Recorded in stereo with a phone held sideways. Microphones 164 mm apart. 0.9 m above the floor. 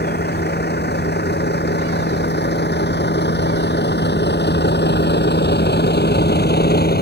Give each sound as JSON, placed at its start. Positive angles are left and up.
{"t": 0.0, "sound": "a vehicle", "side_deg": 75}